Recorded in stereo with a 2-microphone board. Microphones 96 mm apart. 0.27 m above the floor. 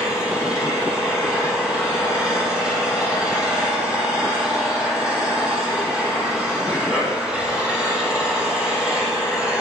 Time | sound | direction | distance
0.0 | an engine running | 10° right (ahead or behind) | 3.5 m